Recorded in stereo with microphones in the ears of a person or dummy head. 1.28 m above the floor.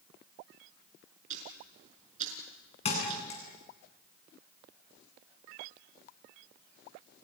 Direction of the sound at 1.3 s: 40° right (ahead or behind).